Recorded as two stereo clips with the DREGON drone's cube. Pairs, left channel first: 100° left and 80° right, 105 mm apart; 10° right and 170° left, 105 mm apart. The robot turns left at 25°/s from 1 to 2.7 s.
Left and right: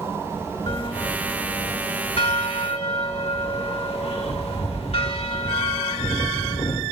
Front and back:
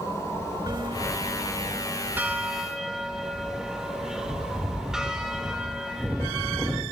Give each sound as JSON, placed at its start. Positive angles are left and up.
{"t": 0.7, "sound": "a bell", "azimuth_deg": 130, "distance_m": 2.0}